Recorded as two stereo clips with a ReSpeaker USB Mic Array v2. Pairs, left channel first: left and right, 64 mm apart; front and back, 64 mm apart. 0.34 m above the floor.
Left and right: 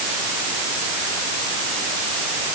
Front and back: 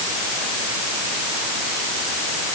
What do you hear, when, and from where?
Only background noise.